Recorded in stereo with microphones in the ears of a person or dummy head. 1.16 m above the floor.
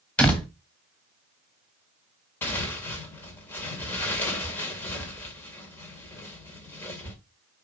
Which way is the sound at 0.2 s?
5° left (ahead or behind).